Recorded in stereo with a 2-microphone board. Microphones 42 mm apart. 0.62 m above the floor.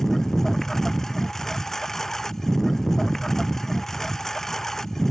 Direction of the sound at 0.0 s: 10° left (ahead or behind).